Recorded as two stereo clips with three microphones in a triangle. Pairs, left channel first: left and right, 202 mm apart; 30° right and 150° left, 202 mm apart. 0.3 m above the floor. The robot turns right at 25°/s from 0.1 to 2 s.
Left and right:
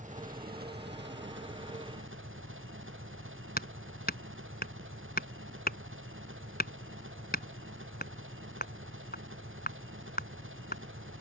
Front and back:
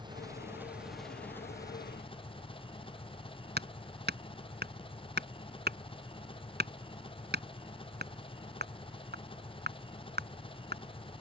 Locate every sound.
0.0 s an engine running: 140° right; by 11.2 s 95° right
3.6 s hammering: 125° left